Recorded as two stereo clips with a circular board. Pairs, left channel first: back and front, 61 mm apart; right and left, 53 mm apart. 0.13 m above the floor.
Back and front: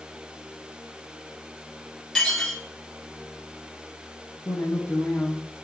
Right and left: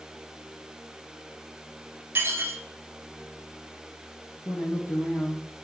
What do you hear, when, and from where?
2.1 s dishes clattering: 100° left, 1.3 m
4.5 s a woman speaking: 115° right, 3.5 m